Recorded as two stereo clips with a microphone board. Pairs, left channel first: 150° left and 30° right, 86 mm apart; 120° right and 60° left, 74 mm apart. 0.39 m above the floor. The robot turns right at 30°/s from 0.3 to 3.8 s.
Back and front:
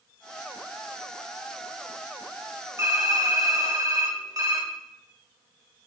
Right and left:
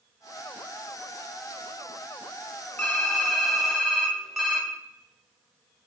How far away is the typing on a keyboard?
About 0.7 m.